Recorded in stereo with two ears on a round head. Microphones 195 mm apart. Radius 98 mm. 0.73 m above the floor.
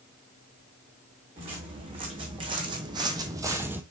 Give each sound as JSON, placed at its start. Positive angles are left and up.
{"t": 1.4, "sound": "footsteps", "side_deg": -25, "distance_m": 2.5}